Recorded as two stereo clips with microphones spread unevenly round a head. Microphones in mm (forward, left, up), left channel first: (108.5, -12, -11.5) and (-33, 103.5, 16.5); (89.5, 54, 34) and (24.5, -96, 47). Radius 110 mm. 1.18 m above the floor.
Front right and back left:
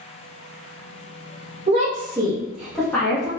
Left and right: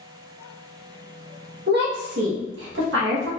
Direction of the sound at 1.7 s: 155° right.